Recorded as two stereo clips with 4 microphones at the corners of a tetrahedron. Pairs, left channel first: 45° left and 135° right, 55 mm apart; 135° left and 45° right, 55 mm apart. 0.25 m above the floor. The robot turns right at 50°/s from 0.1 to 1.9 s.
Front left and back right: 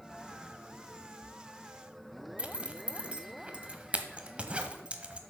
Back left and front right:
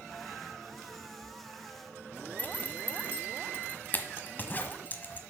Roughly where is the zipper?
Behind.